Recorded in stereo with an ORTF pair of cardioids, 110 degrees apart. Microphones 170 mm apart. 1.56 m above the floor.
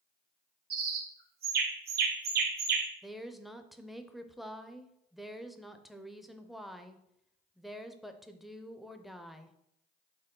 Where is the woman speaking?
Straight ahead, 0.5 m.